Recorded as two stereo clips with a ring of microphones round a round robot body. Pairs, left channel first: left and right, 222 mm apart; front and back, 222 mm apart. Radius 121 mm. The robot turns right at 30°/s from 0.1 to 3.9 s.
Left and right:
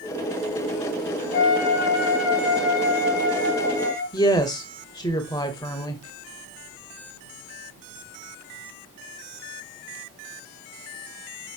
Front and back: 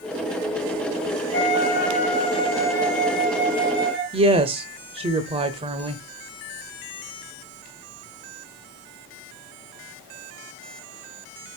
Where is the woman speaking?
145° left, 0.9 m.